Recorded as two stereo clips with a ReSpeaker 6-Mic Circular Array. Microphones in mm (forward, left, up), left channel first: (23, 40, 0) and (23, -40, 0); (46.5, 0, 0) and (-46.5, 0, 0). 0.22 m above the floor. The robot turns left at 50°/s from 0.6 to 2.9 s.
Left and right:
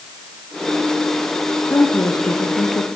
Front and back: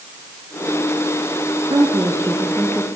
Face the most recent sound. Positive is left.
turn(degrees=90)